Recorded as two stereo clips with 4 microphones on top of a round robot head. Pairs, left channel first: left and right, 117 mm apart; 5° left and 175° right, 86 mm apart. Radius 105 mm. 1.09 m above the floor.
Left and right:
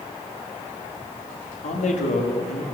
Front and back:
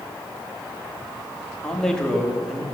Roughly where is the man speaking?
Left.